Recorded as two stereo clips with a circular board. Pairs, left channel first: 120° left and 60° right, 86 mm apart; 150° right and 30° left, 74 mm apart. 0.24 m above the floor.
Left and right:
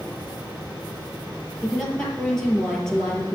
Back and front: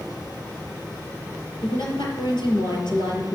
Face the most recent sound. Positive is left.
turn(degrees=-155)